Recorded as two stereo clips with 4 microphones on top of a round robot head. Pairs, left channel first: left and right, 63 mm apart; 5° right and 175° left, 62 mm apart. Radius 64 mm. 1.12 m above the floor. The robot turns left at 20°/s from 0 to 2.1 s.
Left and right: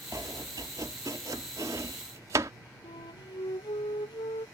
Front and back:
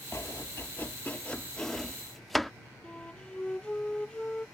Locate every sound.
0.1 s chopping: 55° right; by 2.5 s 95° right
2.8 s a flute: 70° left